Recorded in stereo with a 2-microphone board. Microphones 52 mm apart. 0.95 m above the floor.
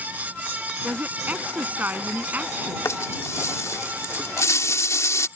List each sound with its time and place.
0.8 s a woman speaking: 35° right (ahead or behind)
2.9 s a rattle: 70° left (ahead or behind)